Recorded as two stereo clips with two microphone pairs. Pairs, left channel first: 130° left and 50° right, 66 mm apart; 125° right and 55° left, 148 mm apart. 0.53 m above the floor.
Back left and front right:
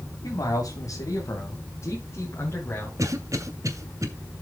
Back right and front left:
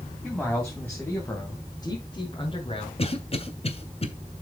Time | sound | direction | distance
0.2 | a man speaking | 145° left | 3 m
3.0 | a cough | 80° right | 2 m